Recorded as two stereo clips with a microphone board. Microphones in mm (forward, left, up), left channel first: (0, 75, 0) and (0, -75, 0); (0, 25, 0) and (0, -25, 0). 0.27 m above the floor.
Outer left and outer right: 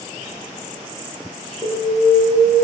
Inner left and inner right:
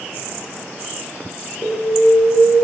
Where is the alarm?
25° left (ahead or behind), 7 m.